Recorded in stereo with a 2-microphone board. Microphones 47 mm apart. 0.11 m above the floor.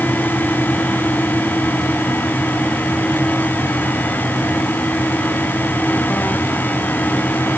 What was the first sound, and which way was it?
Only background noise.